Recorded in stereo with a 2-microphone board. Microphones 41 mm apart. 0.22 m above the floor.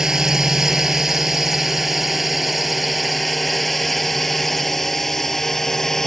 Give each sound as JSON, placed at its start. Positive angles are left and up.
{"t": 0.0, "sound": "a drone", "side_deg": -15}